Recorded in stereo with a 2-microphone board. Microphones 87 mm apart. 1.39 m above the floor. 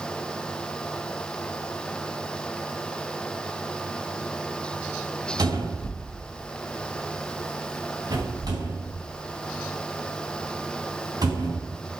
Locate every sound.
5.4 s a cupboard door: 45° right (ahead or behind), 3 m